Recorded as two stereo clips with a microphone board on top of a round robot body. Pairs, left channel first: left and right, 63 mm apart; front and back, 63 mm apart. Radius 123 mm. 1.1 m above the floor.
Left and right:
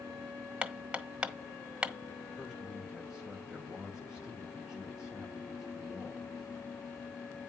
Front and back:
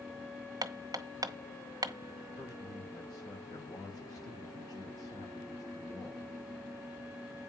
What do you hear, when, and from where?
0.6 s hammering: 160° right, 1.3 m
2.4 s a man speaking: 10° right, 6.5 m